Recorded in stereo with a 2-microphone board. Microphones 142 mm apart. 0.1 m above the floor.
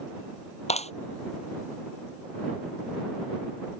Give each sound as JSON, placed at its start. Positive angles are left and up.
{"t": 0.7, "sound": "a clap", "side_deg": 55}